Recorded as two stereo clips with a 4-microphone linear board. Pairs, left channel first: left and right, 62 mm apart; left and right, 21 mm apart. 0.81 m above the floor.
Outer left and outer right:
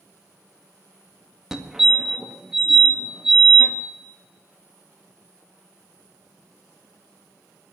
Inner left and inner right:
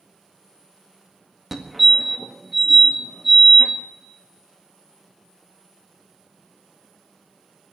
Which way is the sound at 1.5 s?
5° right (ahead or behind).